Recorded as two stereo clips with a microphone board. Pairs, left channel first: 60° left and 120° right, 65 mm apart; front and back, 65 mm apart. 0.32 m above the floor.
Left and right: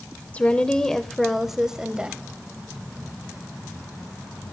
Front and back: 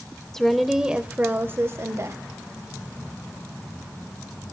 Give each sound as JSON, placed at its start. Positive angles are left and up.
{"t": 0.3, "sound": "a woman speaking", "azimuth_deg": 70, "distance_m": 0.9}